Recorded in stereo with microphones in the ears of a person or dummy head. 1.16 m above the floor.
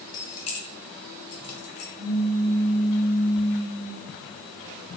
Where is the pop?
50° right (ahead or behind), 1.2 m.